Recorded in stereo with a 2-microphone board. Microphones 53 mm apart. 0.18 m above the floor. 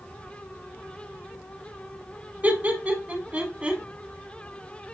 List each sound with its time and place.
2.4 s laughter: 30° right (ahead or behind), 1.3 m; by 3.8 s 25° right (ahead or behind), 1.3 m